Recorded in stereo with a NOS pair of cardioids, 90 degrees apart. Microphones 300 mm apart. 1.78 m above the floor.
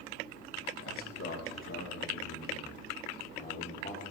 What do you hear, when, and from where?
0.8 s a man speaking: 50° left, 3 m; by 4.0 s 35° left, 4.5 m